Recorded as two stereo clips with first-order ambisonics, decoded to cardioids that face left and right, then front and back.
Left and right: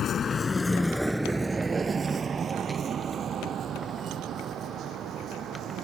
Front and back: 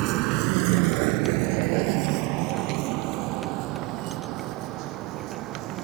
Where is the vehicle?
150° left; by 5.8 s 140° right.